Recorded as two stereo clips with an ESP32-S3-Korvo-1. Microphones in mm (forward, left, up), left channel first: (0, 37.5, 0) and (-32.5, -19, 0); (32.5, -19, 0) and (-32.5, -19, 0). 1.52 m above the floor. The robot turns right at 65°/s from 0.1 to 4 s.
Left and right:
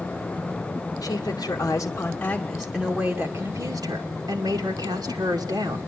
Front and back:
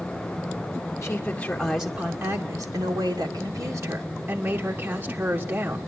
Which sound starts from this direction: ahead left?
A woman speaking, at 1.0 s.